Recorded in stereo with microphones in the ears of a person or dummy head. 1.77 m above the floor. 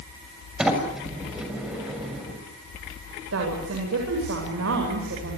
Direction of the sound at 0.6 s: 5° right (ahead or behind).